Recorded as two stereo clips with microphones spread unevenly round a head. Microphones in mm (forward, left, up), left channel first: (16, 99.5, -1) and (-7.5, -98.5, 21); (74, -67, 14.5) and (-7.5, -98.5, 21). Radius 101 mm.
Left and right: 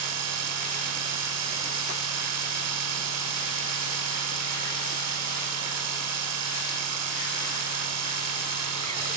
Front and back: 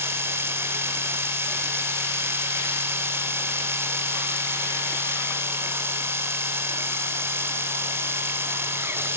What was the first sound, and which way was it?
A machine running, 95° right.